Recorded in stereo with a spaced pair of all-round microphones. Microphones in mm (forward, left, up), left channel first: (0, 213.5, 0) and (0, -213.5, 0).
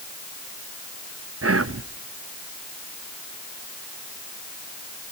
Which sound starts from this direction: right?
Whispering, at 1.4 s.